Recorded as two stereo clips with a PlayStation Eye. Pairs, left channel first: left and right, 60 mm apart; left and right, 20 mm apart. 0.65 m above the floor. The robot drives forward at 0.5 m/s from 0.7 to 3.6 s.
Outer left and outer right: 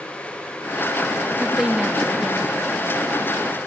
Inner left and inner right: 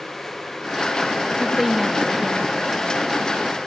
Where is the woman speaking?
10° right (ahead or behind), 0.6 m.